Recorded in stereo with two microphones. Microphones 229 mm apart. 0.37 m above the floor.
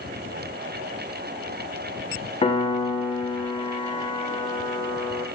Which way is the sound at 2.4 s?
25° left (ahead or behind).